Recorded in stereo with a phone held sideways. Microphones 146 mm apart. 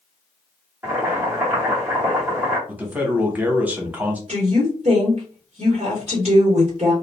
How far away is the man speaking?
About 0.8 m.